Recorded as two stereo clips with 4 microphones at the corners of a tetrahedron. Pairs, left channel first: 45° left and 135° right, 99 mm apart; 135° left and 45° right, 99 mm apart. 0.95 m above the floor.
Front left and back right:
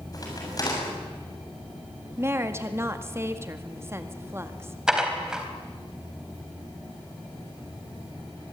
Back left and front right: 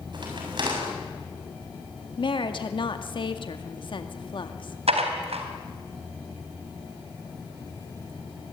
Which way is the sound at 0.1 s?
5° right.